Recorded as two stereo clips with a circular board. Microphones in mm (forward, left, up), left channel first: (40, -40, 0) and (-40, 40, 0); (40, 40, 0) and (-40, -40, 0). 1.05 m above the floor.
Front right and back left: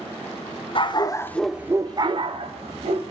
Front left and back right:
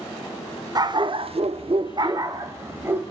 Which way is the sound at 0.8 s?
80° right.